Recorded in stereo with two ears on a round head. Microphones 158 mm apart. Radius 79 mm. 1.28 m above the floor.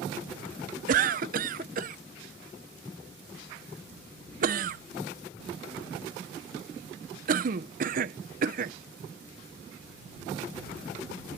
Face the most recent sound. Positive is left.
turn(degrees=-50)  # may be behind; listen again after turning